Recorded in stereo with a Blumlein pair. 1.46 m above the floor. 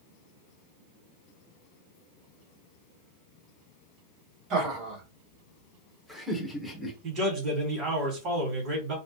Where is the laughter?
35° right, 2.0 m; by 6.9 s 10° left, 1.4 m.